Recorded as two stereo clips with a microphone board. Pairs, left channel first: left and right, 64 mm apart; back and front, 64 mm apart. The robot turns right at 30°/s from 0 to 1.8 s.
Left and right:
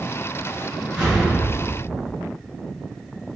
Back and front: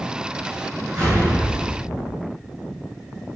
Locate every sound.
0.9 s an explosion: 10° left, 1.8 m; by 2.2 s 35° left, 1.8 m